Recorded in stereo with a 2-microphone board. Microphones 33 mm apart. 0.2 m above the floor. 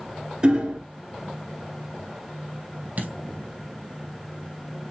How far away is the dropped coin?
About 3.5 m.